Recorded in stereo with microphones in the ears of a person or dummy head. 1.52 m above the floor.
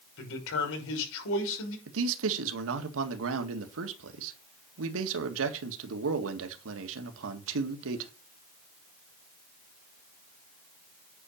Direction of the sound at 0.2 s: 65° left (ahead or behind).